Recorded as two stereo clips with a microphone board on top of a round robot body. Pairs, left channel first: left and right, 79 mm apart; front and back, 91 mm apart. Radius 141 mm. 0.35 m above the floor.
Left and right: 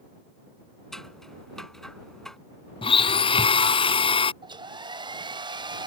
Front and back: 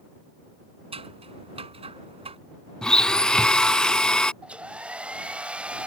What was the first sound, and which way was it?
Scissors, 175° left.